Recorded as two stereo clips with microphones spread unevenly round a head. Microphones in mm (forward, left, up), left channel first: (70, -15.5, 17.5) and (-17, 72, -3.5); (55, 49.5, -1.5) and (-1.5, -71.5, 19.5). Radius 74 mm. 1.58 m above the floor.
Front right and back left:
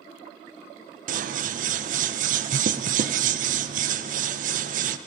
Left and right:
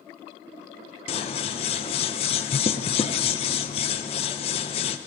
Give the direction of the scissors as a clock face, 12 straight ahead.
8 o'clock.